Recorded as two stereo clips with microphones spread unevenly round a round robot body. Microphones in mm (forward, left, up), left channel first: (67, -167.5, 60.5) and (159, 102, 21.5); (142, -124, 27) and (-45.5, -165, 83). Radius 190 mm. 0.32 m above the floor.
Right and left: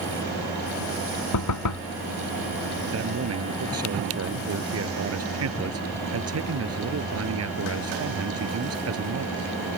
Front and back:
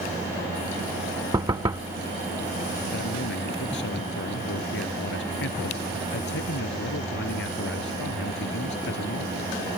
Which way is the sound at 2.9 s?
40° left.